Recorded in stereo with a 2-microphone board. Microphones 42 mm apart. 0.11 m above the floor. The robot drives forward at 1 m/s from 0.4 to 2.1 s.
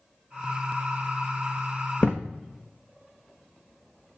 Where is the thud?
30° left (ahead or behind), 1.2 m; by 2.3 s 25° left (ahead or behind), 1.3 m.